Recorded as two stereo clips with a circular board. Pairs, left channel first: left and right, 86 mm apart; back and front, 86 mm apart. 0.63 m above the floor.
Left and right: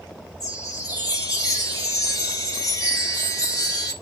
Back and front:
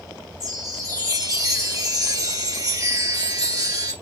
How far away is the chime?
About 2.5 m.